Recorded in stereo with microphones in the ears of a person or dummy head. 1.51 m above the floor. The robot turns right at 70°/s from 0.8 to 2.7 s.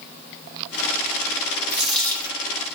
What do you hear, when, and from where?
1.7 s a dropped coin: 15° right, 1.7 m; by 2.4 s 30° left, 1.7 m